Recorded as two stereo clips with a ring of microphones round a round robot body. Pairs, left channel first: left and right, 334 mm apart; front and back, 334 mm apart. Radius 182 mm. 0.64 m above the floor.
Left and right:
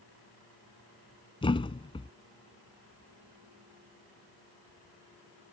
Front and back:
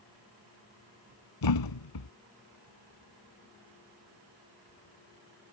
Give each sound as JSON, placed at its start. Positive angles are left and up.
{"t": 1.4, "sound": "a thud", "azimuth_deg": 15}